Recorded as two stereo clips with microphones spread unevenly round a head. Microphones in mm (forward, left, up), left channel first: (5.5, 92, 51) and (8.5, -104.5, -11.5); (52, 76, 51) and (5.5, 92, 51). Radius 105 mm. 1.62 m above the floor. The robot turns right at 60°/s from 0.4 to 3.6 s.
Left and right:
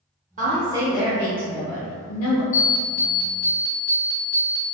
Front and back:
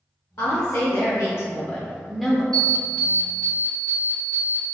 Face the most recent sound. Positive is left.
turn(degrees=120)